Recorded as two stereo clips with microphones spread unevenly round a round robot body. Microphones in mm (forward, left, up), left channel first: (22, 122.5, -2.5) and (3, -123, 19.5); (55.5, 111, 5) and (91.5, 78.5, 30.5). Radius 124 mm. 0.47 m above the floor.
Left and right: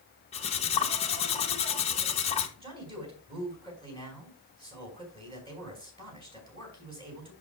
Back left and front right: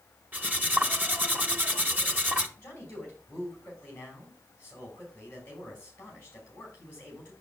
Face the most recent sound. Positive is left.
turn(degrees=-165)